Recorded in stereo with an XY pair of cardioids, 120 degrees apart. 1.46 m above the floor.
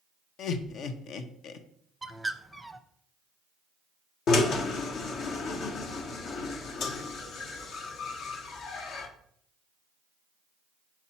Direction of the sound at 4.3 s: 60° left.